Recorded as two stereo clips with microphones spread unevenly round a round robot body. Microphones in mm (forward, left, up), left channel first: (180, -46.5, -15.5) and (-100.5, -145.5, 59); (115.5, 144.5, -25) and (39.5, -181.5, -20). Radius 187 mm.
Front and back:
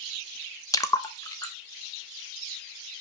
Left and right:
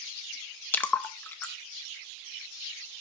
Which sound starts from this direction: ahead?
A splash, at 0.7 s.